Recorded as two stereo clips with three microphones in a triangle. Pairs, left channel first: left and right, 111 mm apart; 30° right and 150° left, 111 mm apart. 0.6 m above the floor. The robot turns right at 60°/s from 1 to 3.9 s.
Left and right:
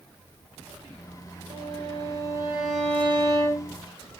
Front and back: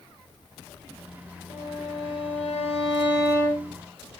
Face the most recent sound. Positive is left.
turn(degrees=65)